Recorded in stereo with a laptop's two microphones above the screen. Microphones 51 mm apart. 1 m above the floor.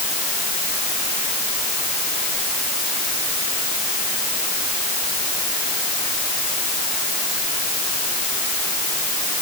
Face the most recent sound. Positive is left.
No sound to turn to.